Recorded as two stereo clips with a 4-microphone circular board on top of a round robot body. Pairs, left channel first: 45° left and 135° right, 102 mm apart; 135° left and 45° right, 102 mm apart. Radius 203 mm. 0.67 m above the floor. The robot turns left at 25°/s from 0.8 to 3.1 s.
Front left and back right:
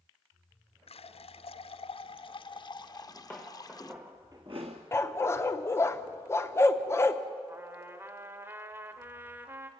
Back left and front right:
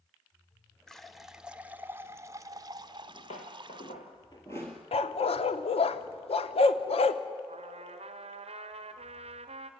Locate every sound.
0.9 s a running tap: 50° left, 0.9 m; by 3.9 s 5° right, 0.9 m
2.9 s footsteps: 120° left, 1.0 m; by 4.8 s 140° right, 0.7 m
4.9 s a dog barking: 110° left, 0.7 m
7.5 s a trumpet: 65° right, 0.7 m